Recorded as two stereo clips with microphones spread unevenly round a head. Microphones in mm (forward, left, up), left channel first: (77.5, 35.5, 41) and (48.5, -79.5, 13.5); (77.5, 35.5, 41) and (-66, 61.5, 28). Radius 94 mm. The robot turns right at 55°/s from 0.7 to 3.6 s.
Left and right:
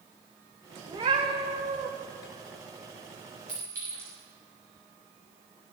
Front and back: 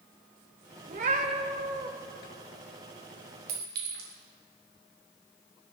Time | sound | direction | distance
0.9 | a cat meowing | 175° right | 1.0 m
3.5 | a clink | 170° left | 3 m